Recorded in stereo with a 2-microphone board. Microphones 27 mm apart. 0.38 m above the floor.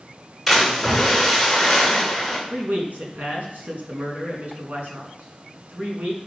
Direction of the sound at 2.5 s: 75° right (ahead or behind).